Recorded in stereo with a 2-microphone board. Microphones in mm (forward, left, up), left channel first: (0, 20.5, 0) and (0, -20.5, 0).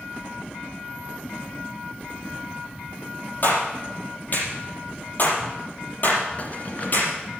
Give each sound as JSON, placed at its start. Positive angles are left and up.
{"t": 3.4, "sound": "a clap", "side_deg": 45, "distance_m": 4.5}
{"t": 6.4, "sound": "keys jangling", "side_deg": 40, "distance_m": 1.9}